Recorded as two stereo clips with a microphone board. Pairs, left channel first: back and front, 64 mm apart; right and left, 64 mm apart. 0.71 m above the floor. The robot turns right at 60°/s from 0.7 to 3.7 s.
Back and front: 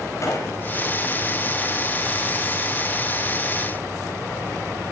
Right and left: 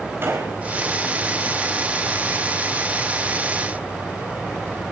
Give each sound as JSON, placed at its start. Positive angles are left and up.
{"t": 0.2, "sound": "a gunshot", "azimuth_deg": 140, "distance_m": 5.0}